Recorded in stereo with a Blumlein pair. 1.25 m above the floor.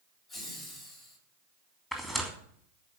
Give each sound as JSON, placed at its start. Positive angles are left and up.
{"t": 0.3, "sound": "laughter", "azimuth_deg": 30, "distance_m": 9.5}
{"t": 1.9, "sound": "tearing paper", "azimuth_deg": 10, "distance_m": 3.0}